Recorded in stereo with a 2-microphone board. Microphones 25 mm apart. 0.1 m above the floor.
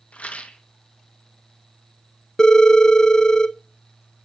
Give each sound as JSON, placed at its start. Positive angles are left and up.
{"t": 0.1, "sound": "a rattle", "side_deg": 80, "distance_m": 0.9}
{"t": 2.4, "sound": "a phone ringing", "side_deg": 35, "distance_m": 0.7}